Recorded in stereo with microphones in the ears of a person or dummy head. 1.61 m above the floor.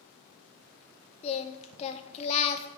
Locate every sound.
1.2 s singing: 30° left (ahead or behind), 0.6 m